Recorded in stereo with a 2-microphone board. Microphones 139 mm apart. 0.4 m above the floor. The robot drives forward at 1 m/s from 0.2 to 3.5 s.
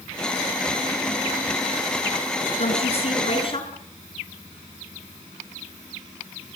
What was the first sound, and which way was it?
A woman speaking, 50° left (ahead or behind).